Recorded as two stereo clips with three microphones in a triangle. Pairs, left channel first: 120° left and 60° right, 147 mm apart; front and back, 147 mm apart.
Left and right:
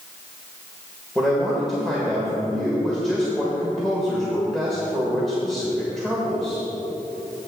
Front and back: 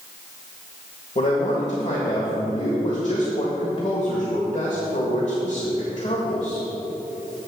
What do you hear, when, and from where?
1.1 s a man speaking: 35° left, 1.6 m